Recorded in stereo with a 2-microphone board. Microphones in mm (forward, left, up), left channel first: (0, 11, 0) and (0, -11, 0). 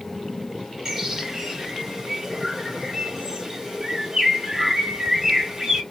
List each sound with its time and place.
0.8 s a bird: 30° right (ahead or behind), 1.4 m